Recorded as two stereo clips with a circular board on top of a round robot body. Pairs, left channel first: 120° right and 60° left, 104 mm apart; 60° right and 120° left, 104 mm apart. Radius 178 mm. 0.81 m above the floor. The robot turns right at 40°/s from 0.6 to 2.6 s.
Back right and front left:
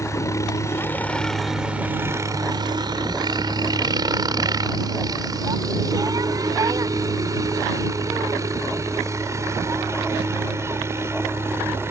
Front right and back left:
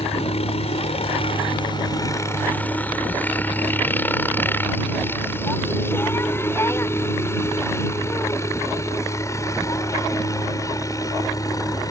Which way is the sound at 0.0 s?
60° right.